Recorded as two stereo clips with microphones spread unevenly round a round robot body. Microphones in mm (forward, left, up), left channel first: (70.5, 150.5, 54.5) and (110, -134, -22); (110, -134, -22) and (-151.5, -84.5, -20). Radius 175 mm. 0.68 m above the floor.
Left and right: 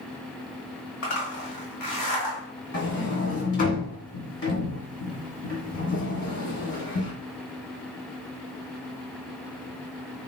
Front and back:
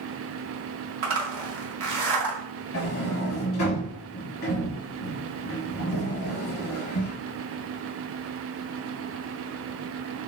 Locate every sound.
1.0 s a zipper: 155° left, 1.4 m
2.7 s a sliding door: 45° left, 2.0 m